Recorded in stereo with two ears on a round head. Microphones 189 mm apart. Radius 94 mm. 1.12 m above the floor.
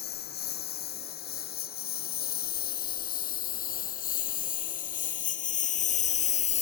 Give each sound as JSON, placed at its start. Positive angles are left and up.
{"t": 0.0, "sound": "a lawn mower", "side_deg": 50}